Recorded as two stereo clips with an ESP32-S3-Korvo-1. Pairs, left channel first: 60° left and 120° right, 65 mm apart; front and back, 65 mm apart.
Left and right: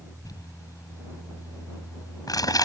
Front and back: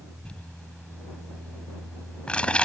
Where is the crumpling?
75° left.